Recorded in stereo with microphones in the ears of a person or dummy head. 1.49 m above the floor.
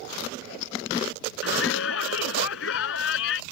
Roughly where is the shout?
Left.